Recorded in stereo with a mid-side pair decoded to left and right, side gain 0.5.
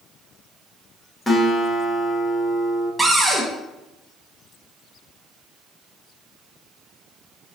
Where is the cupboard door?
15° right, 1.0 m.